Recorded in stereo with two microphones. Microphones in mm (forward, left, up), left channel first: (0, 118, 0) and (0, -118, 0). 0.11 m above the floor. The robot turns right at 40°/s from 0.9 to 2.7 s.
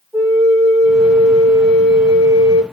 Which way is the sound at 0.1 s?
175° left.